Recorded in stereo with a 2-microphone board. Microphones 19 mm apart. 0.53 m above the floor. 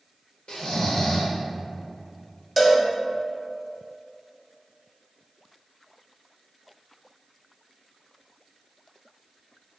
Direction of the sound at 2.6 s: Centre (ahead or behind).